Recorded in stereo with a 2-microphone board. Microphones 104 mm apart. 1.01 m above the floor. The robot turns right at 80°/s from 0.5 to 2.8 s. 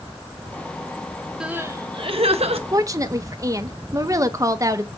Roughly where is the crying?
Behind.